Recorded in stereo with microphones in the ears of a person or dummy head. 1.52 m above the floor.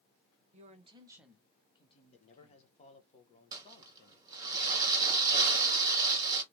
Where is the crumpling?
20° right (ahead or behind), 1.8 m.